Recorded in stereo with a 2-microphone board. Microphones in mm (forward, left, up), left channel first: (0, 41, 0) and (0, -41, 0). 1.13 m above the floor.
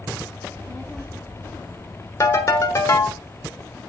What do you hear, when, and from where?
0.4 s a child speaking: 10° right (ahead or behind), 1.8 m; by 3.2 s 50° left (ahead or behind), 2 m
2.2 s a ringtone: 40° left (ahead or behind), 1.3 m